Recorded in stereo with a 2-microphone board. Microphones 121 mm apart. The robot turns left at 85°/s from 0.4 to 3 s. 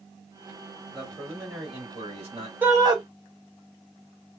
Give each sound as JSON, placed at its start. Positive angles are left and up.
{"t": 0.9, "sound": "a man speaking", "azimuth_deg": 5, "distance_m": 2.0}
{"t": 2.6, "sound": "a shout", "azimuth_deg": -15, "distance_m": 1.4}